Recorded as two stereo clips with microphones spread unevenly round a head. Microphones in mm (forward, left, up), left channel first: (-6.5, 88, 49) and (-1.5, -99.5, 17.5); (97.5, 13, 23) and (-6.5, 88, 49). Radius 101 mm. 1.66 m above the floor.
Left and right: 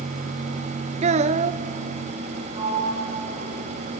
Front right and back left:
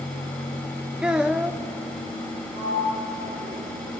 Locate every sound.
1.0 s a child speaking: 145° right, 0.6 m
2.5 s a sliding door: 155° right, 8 m